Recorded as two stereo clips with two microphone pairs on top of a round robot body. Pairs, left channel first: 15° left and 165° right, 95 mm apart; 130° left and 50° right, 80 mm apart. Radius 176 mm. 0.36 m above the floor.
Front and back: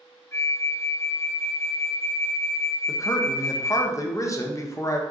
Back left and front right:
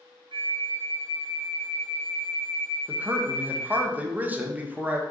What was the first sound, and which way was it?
A flute, 45° right.